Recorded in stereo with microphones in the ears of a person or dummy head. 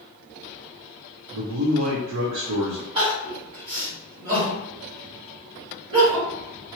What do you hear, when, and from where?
1.3 s a man speaking: 80° right, 0.7 m
3.0 s crying: 30° right (ahead or behind), 1.9 m